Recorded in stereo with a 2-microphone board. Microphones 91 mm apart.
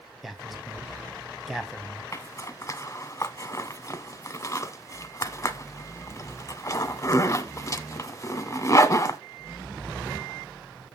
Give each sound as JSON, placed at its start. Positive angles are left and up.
{"t": 0.2, "sound": "a man speaking", "side_deg": 0, "distance_m": 1.6}
{"t": 2.1, "sound": "a zipper", "side_deg": 35, "distance_m": 0.8}